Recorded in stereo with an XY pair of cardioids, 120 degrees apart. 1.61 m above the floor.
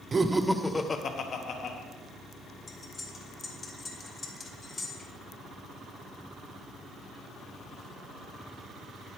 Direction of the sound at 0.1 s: 35° right.